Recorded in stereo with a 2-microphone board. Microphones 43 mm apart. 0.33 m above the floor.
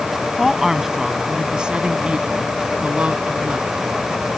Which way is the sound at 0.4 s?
5° right (ahead or behind).